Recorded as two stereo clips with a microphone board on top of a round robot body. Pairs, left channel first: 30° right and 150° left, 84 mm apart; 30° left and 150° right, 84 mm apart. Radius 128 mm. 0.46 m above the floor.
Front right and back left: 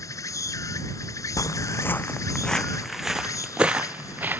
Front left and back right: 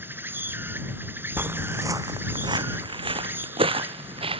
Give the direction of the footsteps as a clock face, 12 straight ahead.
3 o'clock.